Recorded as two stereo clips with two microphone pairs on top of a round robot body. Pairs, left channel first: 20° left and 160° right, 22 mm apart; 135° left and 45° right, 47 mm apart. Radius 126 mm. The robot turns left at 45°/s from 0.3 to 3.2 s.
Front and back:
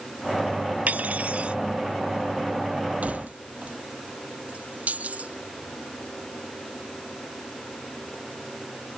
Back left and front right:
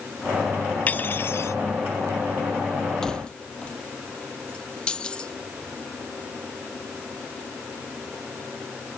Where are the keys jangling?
145° right; by 5.4 s 155° right.